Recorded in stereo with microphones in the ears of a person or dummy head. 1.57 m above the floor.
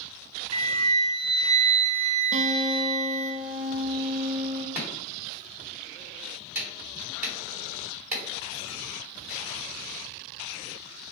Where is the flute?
30° right (ahead or behind), 0.6 m.